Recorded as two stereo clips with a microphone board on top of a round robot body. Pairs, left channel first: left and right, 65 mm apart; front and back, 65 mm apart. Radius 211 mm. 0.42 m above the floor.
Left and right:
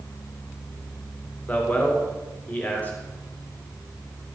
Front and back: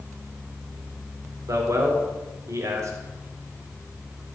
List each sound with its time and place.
1.5 s a man speaking: 150° left, 2.0 m